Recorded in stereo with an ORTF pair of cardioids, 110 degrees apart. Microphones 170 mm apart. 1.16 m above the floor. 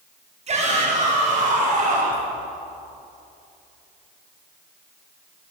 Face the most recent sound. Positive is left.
turn(degrees=-45)